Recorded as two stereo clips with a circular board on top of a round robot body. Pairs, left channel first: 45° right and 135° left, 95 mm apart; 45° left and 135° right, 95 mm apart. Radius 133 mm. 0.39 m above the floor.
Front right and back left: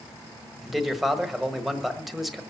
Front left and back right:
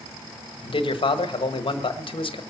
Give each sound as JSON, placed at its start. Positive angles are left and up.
{"t": 0.6, "sound": "a man speaking", "azimuth_deg": 45, "distance_m": 1.5}